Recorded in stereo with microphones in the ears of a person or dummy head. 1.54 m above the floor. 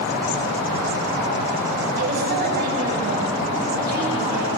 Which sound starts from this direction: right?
A woman speaking, at 2.0 s.